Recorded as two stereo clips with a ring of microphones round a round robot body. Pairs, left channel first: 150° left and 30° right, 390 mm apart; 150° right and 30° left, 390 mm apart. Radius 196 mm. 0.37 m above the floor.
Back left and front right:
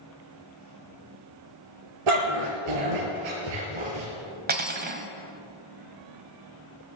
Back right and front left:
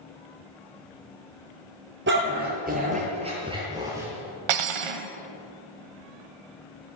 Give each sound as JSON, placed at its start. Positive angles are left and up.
{"t": 2.1, "sound": "a dog barking", "azimuth_deg": -35, "distance_m": 4.0}
{"t": 4.5, "sound": "cutlery clinking", "azimuth_deg": 35, "distance_m": 1.3}